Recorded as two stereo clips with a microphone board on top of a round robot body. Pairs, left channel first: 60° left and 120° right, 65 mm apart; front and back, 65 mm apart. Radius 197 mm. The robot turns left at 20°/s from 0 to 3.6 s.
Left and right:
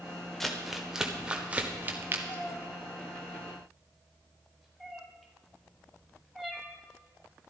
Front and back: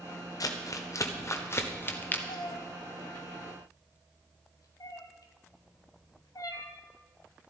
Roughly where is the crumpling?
Ahead right.